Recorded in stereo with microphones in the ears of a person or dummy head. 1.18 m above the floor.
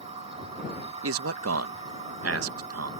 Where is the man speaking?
70° right (ahead or behind).